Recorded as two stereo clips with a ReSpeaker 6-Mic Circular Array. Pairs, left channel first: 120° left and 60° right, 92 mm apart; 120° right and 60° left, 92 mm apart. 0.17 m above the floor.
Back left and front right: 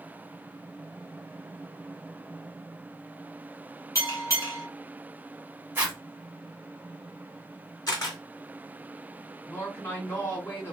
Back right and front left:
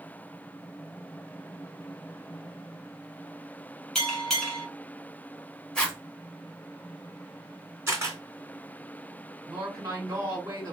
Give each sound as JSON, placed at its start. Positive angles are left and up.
{"t": 4.0, "sound": "a bell", "azimuth_deg": 155, "distance_m": 1.2}
{"t": 5.8, "sound": "a zipper", "azimuth_deg": -55, "distance_m": 1.0}
{"t": 7.9, "sound": "a camera shutter", "azimuth_deg": 105, "distance_m": 2.0}
{"t": 9.5, "sound": "a woman speaking", "azimuth_deg": 75, "distance_m": 2.0}